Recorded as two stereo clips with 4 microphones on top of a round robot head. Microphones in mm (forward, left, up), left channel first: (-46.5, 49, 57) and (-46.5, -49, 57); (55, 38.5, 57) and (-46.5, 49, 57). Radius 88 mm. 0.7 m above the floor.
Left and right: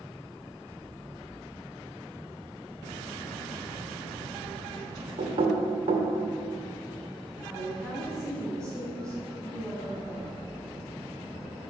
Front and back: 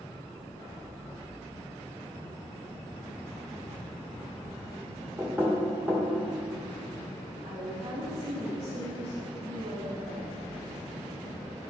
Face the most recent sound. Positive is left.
turn(degrees=-175)